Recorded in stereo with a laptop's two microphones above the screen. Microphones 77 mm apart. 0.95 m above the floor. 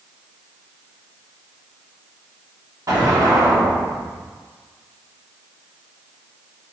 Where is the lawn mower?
I don't hear a lawn mower.